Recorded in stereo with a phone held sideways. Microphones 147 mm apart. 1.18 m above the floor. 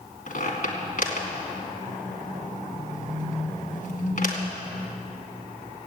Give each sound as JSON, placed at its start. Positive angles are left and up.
{"t": 0.3, "sound": "a squeak", "side_deg": 65, "distance_m": 2.5}